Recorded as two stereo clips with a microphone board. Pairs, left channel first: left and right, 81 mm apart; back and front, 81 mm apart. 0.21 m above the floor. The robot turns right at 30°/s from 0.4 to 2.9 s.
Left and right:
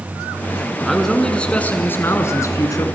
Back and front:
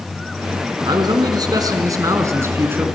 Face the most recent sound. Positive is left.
turn(degrees=60)